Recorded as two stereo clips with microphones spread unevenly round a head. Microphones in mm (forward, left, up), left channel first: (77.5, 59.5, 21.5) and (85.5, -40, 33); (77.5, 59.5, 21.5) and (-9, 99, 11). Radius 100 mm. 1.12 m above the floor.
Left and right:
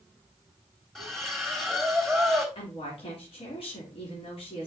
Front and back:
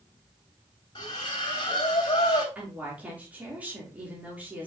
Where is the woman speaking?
80° left, 3 m.